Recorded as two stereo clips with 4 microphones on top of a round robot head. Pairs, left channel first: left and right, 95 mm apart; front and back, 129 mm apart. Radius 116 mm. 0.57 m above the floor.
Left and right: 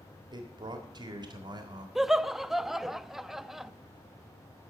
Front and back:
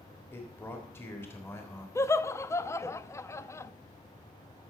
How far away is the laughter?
About 0.6 m.